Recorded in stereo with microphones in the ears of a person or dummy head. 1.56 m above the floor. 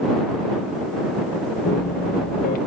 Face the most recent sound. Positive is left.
turn(degrees=45)  # may be behind; listen again after turning